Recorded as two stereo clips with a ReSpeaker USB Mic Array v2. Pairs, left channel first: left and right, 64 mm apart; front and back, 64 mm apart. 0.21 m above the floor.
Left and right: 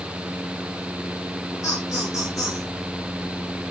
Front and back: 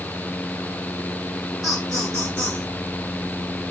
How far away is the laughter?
About 2.5 m.